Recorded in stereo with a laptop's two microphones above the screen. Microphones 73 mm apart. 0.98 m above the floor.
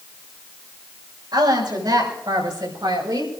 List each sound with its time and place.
1.3 s a woman speaking: 80° right, 6 m; by 3.3 s 85° right, 5 m